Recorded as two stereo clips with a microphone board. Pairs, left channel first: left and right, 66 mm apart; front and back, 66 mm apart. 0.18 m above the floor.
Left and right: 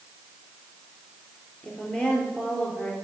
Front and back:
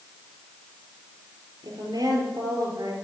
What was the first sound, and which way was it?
A woman speaking, 165° left.